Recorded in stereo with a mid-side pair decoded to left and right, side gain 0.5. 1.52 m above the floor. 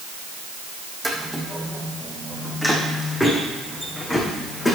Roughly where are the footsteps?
Ahead.